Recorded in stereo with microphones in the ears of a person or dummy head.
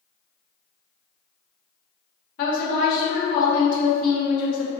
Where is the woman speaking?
50° left (ahead or behind), 0.9 m.